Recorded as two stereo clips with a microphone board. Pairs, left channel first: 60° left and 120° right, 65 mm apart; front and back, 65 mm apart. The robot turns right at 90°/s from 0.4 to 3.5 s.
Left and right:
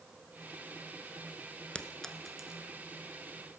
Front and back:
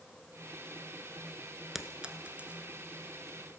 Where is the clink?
100° left, 1.0 m; by 2.8 s 170° right, 1.0 m.